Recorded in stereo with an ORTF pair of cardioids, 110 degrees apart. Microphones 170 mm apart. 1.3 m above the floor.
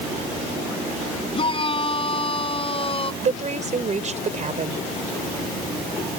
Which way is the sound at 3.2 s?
45° right.